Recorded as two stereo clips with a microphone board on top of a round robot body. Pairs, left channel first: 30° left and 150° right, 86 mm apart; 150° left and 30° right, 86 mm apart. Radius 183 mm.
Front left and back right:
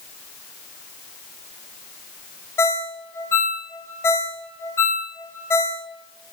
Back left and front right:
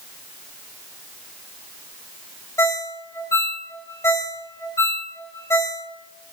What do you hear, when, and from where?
2.6 s a ringtone: 95° left, 0.8 m